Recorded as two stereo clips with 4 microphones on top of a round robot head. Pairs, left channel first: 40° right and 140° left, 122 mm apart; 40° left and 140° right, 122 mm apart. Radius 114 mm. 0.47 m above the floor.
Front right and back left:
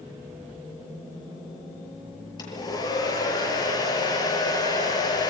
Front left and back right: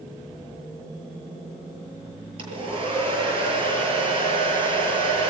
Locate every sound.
2.4 s a hair dryer: 95° right, 8 m